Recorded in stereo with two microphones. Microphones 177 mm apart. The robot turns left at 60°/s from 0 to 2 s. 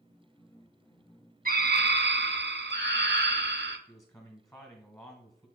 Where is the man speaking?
15° left (ahead or behind), 1.3 m.